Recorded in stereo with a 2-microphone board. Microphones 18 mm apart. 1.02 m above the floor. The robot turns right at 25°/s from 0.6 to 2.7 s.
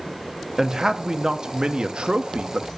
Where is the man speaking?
155° right, 1.3 m; by 2.7 s 105° right, 1.3 m.